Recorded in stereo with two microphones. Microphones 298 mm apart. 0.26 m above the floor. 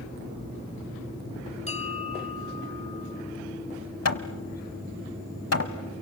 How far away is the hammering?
About 1.1 m.